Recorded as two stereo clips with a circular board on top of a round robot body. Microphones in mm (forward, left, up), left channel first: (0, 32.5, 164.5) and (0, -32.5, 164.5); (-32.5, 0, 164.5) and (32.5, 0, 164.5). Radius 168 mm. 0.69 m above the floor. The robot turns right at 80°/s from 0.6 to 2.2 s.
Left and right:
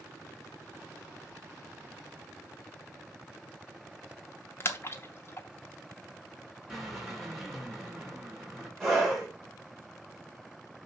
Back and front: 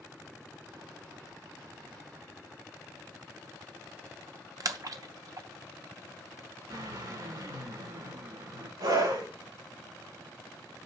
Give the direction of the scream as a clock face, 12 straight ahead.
12 o'clock.